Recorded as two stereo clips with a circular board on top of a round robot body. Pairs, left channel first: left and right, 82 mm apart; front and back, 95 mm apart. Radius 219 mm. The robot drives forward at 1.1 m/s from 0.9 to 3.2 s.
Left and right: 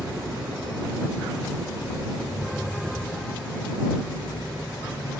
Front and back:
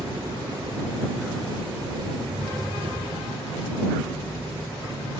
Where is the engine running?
130° right, 2.5 m; by 5.2 s 155° right, 4.5 m.